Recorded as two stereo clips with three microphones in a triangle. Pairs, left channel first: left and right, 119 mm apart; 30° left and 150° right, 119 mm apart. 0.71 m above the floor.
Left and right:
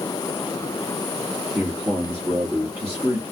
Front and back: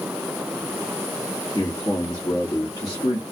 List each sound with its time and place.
1.6 s a man speaking: 20° right, 1.5 m